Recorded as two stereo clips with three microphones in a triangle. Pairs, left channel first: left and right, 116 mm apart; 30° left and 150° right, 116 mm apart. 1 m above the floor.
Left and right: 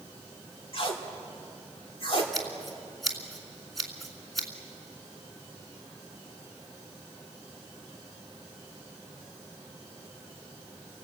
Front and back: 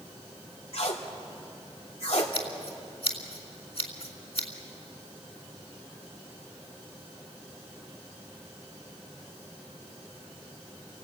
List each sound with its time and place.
0.7 s tape being pulled: 55° left, 2.5 m
2.3 s scissors: straight ahead, 2.5 m